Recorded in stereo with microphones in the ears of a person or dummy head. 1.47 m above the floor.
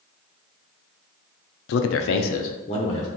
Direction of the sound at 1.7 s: 70° left (ahead or behind).